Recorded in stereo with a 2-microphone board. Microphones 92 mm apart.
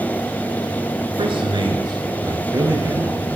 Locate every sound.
1.2 s a man speaking: 65° right (ahead or behind), 2.5 m; by 3.4 s 30° right (ahead or behind), 4 m